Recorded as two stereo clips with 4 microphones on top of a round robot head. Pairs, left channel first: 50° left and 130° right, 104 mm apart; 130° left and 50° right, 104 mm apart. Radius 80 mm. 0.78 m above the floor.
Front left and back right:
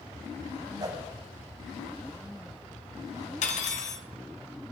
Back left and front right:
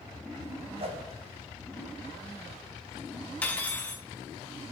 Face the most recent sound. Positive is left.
turn(degrees=50)